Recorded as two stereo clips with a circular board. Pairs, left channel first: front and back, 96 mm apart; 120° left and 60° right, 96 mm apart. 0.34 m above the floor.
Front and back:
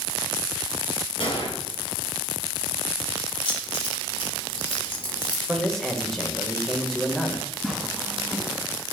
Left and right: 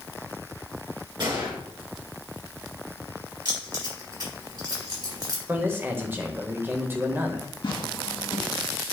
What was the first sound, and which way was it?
A gunshot, 20° right.